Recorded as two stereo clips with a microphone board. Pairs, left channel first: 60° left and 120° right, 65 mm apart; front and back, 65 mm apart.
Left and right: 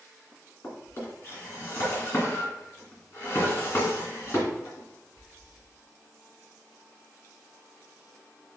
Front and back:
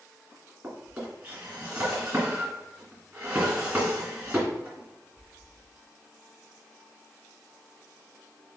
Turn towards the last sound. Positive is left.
turn(degrees=115)